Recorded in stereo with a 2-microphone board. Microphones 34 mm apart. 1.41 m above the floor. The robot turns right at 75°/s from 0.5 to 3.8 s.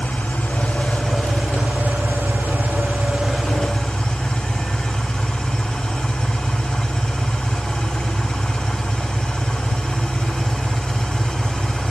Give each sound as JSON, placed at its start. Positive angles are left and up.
{"t": 0.0, "sound": "an engine running", "azimuth_deg": 140, "distance_m": 6.5}